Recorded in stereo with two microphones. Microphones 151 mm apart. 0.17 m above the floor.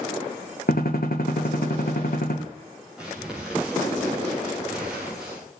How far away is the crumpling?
About 7.5 m.